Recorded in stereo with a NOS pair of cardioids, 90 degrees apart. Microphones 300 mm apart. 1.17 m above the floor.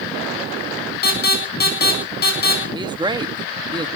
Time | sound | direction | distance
1.0 | an alarm | 30° left | 8 m
2.7 | a man speaking | 15° right | 1.4 m